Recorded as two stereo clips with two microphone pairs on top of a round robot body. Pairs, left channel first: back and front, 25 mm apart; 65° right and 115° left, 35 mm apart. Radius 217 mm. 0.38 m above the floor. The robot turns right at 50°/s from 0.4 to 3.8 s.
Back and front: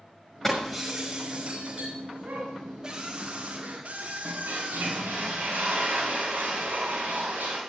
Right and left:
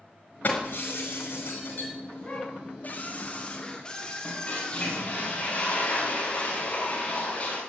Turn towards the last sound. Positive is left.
turn(degrees=-15)